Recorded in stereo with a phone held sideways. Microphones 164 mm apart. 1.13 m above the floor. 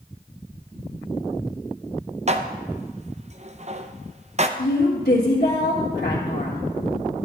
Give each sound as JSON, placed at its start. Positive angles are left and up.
{"t": 2.3, "sound": "dishes clattering", "side_deg": -45, "distance_m": 0.5}
{"t": 4.6, "sound": "a woman speaking", "side_deg": 70, "distance_m": 1.7}